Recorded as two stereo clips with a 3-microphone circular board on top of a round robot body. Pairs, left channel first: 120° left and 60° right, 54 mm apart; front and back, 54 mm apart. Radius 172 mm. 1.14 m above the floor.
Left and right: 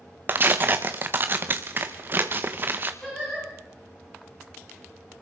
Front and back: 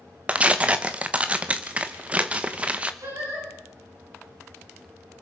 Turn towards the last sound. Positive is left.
turn(degrees=-160)